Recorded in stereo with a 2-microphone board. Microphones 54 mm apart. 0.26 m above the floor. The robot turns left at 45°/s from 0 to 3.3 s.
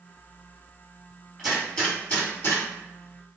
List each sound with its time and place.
1.4 s a gunshot: centre (ahead or behind), 1.8 m; by 2.6 s 55° left (ahead or behind), 1.8 m